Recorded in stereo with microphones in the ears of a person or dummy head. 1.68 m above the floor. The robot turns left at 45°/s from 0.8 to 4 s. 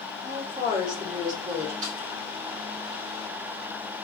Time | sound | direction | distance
0.2 | a woman speaking | 25° right | 2 m
1.8 | a snare drum | 45° right (ahead or behind) | 1.7 m